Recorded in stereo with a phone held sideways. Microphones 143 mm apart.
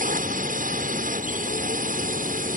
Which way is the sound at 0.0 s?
65° right (ahead or behind).